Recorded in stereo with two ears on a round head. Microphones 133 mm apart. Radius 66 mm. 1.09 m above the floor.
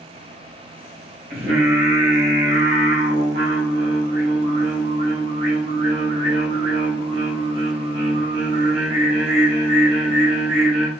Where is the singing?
80° right, 2 m.